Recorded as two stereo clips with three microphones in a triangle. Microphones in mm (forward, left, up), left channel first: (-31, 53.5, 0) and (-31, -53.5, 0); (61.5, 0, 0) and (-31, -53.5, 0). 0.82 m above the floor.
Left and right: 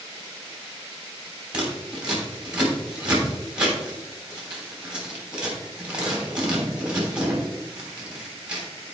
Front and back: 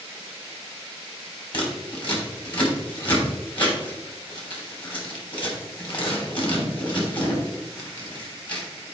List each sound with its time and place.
1.5 s scissors: 10° right, 3 m